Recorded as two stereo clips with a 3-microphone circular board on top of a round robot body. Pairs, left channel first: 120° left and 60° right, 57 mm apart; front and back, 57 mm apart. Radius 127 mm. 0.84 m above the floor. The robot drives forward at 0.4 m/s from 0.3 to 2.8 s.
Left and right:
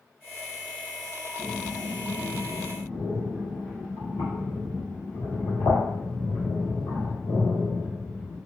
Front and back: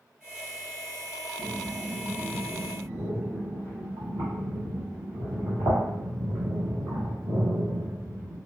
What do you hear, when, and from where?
1.4 s breathing: 145° left, 0.8 m; by 8.4 s 160° left, 1.2 m